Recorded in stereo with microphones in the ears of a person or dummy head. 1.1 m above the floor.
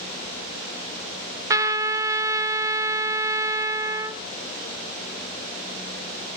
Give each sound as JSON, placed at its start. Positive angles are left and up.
{"t": 1.5, "sound": "a trumpet", "side_deg": -15, "distance_m": 0.6}